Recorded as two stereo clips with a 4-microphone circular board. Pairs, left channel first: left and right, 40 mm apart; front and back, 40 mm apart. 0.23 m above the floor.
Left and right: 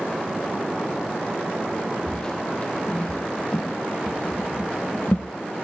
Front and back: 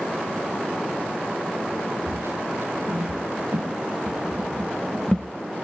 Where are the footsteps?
160° left, 1.7 m; by 5.3 s 65° left, 1.1 m.